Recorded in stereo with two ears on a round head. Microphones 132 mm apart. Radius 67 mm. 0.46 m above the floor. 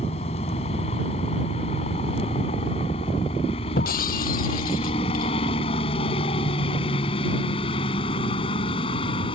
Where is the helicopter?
40° left (ahead or behind); by 9.3 s 35° left (ahead or behind).